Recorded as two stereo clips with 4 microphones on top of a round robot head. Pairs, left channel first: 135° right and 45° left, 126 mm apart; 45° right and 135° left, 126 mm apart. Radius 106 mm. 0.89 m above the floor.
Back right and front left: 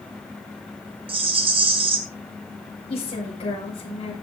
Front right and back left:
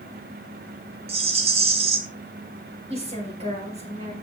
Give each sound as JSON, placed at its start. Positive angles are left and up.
{"t": 1.1, "sound": "a rattle", "azimuth_deg": 95, "distance_m": 1.5}
{"t": 2.9, "sound": "a woman speaking", "azimuth_deg": 175, "distance_m": 5.0}